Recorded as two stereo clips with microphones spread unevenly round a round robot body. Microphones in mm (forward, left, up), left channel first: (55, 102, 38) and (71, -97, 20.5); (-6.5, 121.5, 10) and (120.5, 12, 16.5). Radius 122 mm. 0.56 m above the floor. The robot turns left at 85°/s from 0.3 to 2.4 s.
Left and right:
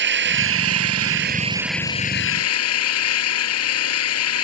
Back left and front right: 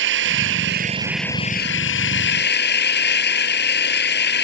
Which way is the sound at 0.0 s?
55° right.